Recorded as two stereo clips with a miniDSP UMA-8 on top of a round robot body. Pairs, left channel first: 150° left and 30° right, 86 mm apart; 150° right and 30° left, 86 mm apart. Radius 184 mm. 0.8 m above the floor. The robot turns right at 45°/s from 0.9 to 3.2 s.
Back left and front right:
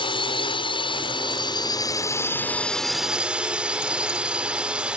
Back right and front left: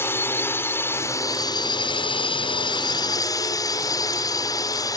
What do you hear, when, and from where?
0.0 s a drone: 150° left; by 5.0 s 110° right